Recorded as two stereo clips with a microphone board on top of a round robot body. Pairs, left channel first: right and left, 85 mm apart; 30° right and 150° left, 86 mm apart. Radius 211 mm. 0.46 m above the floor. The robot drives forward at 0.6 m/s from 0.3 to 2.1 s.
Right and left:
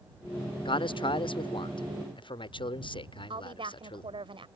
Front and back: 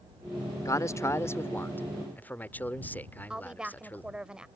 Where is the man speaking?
80° right; by 4.1 s 100° right.